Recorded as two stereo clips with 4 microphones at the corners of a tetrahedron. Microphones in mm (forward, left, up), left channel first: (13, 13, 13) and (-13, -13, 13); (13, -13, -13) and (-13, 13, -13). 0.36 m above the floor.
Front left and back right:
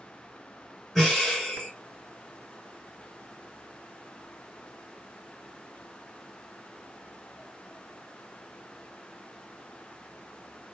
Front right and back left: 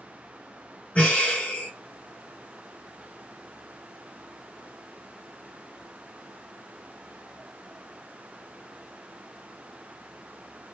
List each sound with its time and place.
0.9 s breathing: 50° right, 1.9 m